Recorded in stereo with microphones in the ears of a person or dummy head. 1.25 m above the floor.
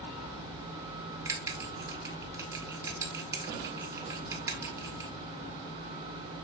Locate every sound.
1.2 s a bell: 15° right (ahead or behind), 1.7 m